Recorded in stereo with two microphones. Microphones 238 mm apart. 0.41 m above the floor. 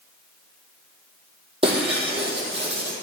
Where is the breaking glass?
20° right (ahead or behind), 3 m.